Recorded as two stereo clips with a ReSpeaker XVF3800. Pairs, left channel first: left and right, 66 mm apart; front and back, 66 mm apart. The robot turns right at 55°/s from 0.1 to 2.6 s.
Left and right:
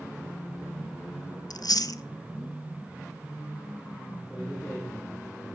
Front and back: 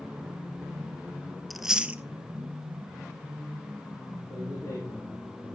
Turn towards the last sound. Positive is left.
turn(degrees=5)